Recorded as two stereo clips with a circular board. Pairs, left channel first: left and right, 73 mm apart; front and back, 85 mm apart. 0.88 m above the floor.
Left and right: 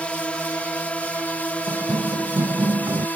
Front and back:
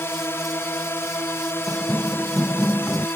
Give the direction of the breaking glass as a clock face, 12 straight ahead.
No breaking glass in this recording.